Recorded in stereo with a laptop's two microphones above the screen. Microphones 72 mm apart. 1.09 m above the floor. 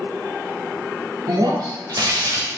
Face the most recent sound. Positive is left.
turn(degrees=-65)  # may be behind; listen again after turning